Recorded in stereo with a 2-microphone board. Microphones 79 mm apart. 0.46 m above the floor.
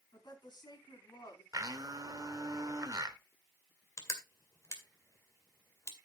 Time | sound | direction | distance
0.1 | a woman speaking | 65° left (ahead or behind) | 3.5 m
1.5 | a blender | 50° right (ahead or behind) | 1.1 m
4.0 | crushing | 40° left (ahead or behind) | 2 m